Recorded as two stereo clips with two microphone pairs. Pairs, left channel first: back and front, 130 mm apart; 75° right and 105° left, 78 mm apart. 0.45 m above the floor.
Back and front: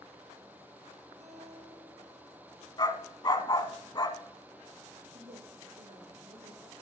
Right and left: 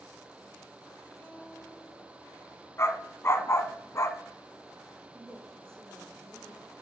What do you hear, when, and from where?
1.2 s a guitar: 5° right, 3.5 m
2.8 s a dog barking: 125° right, 1.1 m
5.1 s a woman speaking: 5° left, 7.5 m